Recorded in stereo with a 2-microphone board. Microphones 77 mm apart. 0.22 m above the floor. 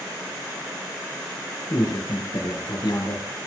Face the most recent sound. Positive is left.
turn(degrees=70)  # may be behind; listen again after turning